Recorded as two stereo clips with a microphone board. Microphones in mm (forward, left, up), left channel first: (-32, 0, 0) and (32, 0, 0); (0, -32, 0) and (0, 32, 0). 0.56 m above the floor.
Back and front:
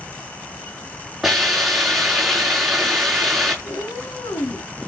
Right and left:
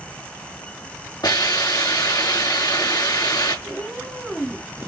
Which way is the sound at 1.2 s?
85° right.